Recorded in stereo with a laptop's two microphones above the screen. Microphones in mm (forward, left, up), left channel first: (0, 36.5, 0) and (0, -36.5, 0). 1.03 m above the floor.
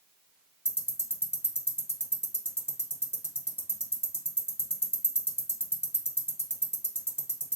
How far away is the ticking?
About 0.7 m.